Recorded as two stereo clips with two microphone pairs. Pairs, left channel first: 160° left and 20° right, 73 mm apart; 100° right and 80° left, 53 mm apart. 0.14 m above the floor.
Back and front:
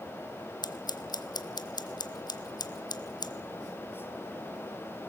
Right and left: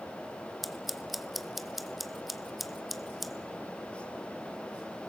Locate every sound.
0.6 s scissors: 170° left, 0.8 m